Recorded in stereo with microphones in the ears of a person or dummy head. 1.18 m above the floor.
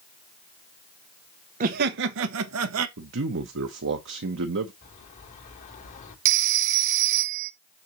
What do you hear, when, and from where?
1.6 s laughter: 45° right (ahead or behind), 0.7 m; by 2.9 s 85° right, 1.0 m
3.0 s a man speaking: 65° right (ahead or behind), 1.0 m
4.8 s a bird: 40° left (ahead or behind), 3 m
6.2 s a phone ringing: 45° right (ahead or behind), 1.0 m